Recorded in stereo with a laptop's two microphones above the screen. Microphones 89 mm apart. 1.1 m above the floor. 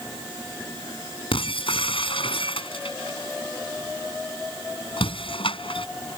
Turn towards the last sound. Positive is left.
turn(degrees=85)